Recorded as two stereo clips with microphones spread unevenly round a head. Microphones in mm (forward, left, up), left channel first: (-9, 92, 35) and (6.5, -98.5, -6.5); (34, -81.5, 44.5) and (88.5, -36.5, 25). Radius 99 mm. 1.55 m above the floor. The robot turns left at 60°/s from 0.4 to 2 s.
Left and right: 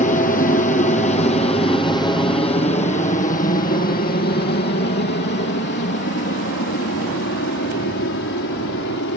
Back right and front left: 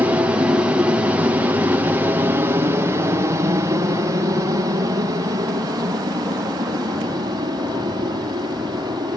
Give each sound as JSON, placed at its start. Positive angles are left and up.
{"t": 0.0, "sound": "an aircraft", "azimuth_deg": 50}